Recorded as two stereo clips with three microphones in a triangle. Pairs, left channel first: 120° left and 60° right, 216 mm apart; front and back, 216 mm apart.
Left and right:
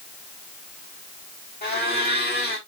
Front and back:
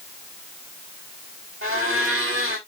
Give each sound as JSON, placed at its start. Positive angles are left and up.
{"t": 1.6, "sound": "a blender", "azimuth_deg": 165, "distance_m": 5.5}